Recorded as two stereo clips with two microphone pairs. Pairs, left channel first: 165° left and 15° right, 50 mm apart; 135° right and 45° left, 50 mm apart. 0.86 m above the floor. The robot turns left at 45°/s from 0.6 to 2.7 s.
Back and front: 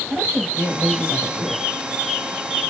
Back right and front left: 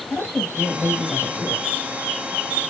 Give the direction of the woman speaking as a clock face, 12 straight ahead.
2 o'clock.